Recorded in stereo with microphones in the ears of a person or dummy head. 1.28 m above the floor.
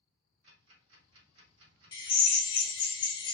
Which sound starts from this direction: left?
A drill, at 1.9 s.